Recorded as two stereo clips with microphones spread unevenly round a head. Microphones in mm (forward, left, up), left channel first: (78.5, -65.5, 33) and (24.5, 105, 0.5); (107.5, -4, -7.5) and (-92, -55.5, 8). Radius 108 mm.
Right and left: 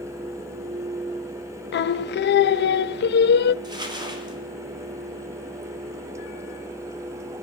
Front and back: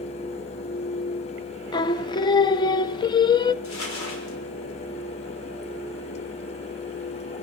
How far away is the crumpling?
About 5.5 m.